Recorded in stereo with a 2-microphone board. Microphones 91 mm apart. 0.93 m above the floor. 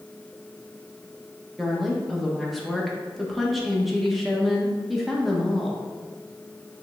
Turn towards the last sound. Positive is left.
turn(degrees=0)  # may be behind; listen again after turning